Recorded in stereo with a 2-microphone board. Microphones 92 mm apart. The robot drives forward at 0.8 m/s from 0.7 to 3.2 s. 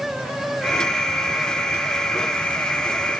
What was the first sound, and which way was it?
Only background noise.